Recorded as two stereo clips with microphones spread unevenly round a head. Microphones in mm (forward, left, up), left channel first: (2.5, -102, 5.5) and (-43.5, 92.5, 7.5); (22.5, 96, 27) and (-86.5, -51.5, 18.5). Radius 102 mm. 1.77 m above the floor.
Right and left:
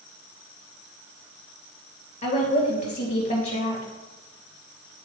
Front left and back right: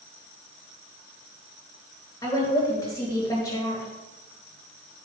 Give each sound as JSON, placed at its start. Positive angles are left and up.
{"t": 2.2, "sound": "a woman speaking", "azimuth_deg": -20, "distance_m": 2.5}